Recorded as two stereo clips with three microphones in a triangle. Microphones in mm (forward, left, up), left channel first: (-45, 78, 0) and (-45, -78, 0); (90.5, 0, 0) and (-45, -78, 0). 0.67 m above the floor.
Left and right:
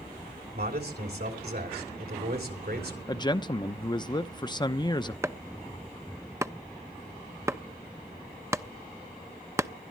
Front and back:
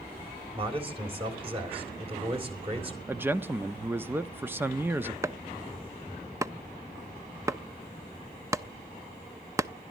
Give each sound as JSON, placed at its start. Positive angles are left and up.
{"t": 0.5, "sound": "a man speaking", "azimuth_deg": -95, "distance_m": 3.0}
{"t": 3.1, "sound": "a man speaking", "azimuth_deg": 140, "distance_m": 0.6}
{"t": 5.2, "sound": "chopping", "azimuth_deg": -125, "distance_m": 0.5}